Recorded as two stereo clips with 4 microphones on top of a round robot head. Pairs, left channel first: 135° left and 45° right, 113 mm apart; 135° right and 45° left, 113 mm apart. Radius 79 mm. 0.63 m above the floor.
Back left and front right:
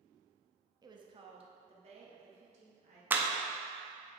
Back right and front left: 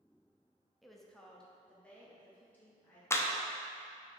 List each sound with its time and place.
0.8 s a woman speaking: 40° right, 0.8 m; by 3.0 s 55° right, 2.5 m
3.1 s a clap: 100° right, 0.7 m